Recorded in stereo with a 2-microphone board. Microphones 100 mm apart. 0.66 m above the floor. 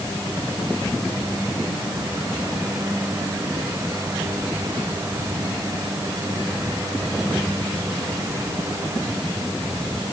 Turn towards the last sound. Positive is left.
No sound to turn to.